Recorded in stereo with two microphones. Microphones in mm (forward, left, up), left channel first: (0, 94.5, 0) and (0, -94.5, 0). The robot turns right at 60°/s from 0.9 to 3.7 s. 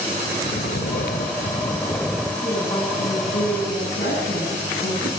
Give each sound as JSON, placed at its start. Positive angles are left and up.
{"t": 0.4, "sound": "snoring", "azimuth_deg": 105, "distance_m": 2.0}
{"t": 2.4, "sound": "a woman speaking", "azimuth_deg": 5, "distance_m": 10.0}